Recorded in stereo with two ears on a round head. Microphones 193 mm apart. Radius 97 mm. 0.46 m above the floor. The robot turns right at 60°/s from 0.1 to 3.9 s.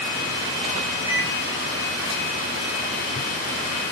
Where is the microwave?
15° right (ahead or behind), 2 m; by 1.3 s 5° right (ahead or behind), 2 m.